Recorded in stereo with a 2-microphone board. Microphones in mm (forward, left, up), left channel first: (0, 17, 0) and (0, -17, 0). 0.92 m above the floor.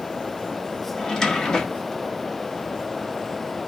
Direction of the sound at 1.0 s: 15° left (ahead or behind).